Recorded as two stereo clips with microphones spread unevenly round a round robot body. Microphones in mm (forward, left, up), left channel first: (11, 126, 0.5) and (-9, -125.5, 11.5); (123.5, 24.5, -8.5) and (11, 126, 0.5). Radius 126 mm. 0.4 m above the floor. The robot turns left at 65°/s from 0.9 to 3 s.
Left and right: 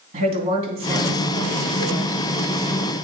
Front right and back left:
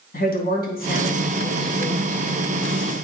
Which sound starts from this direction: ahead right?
A woman speaking, at 0.1 s.